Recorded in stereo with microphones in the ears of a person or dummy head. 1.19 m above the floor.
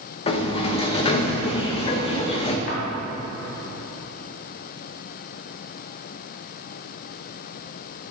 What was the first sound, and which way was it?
A sliding door, 30° left (ahead or behind).